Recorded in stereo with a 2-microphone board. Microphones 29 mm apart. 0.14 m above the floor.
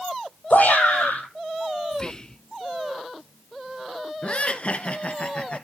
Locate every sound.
0.5 s a shout: 75° left (ahead or behind), 6.5 m
1.9 s whispering: 25° left (ahead or behind), 1.2 m
4.2 s laughter: 45° left (ahead or behind), 1.8 m